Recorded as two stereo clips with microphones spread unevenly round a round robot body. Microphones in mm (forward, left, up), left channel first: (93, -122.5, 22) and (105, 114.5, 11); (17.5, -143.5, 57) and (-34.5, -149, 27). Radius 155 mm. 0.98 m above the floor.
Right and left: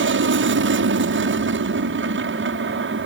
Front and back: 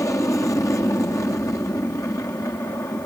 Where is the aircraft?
65° left.